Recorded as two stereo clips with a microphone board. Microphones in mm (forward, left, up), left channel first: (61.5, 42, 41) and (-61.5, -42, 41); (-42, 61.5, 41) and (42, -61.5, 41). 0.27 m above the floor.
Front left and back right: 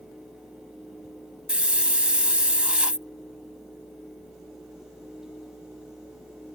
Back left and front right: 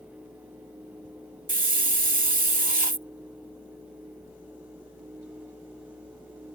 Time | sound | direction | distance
1.5 | a hiss | 65° right | ?